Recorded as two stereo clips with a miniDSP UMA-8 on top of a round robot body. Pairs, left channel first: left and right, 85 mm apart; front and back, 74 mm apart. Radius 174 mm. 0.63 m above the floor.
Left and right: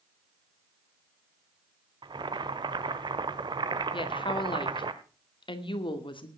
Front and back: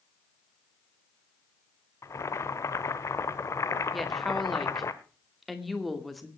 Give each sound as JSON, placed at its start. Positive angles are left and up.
{"t": 2.0, "sound": "boiling", "azimuth_deg": -55, "distance_m": 0.8}
{"t": 3.9, "sound": "a woman speaking", "azimuth_deg": 90, "distance_m": 2.5}